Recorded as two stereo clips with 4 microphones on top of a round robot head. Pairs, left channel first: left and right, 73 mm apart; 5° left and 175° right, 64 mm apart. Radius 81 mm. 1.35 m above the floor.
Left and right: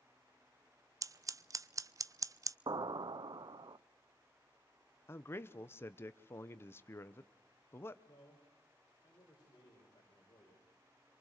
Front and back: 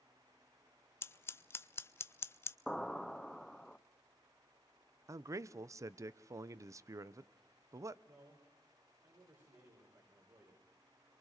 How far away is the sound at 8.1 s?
About 5 m.